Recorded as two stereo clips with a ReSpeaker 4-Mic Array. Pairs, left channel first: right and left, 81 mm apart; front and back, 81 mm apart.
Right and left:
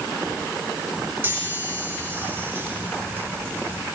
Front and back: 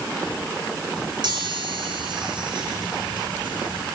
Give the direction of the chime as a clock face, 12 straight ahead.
7 o'clock.